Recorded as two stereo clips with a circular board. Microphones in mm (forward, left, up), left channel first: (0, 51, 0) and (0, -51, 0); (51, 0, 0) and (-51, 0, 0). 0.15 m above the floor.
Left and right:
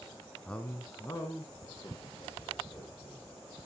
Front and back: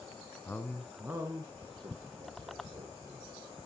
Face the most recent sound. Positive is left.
turn(degrees=145)